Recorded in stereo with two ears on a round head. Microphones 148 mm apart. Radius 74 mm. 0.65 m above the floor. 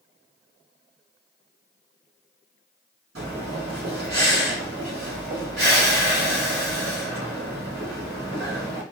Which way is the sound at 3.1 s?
60° right (ahead or behind).